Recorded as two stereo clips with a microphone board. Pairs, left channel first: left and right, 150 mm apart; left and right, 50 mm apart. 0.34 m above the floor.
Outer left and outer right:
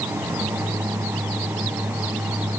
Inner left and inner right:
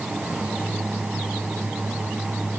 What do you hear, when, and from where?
Only background noise.